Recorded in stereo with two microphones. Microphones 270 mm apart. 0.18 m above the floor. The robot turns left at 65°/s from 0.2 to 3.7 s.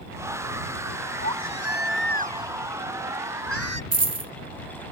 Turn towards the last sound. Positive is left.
turn(degrees=-65)  # may be behind; listen again after turning